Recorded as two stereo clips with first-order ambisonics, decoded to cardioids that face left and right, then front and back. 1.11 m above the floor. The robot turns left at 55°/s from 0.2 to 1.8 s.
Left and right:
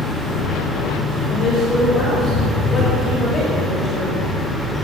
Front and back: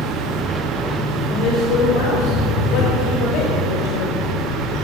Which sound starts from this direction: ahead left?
A woman speaking, at 1.3 s.